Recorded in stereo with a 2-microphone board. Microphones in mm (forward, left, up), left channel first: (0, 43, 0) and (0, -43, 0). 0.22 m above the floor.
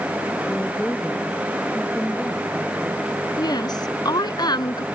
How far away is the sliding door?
I don't hear a sliding door.